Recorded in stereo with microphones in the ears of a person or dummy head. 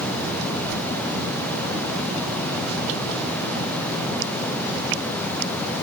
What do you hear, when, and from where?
0.7 s a whoosh: 55° right (ahead or behind), 1.1 m